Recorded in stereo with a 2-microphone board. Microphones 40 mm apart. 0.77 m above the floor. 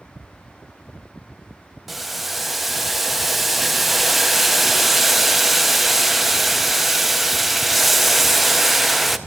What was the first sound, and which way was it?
Boiling, 5° right (ahead or behind).